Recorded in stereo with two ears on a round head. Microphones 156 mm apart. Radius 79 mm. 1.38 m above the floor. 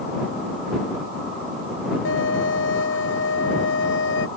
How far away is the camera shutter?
I don't hear a camera shutter.